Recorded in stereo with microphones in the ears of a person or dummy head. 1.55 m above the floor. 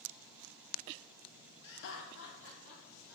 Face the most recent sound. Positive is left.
turn(degrees=80)